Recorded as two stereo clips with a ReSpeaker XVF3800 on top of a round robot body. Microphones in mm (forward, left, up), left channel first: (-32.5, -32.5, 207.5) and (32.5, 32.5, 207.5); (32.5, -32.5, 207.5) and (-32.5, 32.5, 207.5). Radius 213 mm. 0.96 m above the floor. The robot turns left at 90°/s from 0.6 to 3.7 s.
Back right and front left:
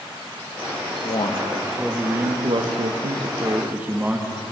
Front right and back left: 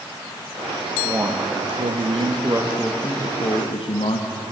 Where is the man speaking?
150° right, 1.7 m; by 4.3 s 30° right, 1.7 m.